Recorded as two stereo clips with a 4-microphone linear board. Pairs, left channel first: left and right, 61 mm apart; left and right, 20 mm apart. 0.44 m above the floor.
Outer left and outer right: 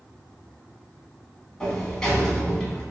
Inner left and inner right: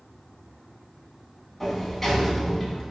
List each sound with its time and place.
1.6 s a sliding door: 10° left (ahead or behind), 0.9 m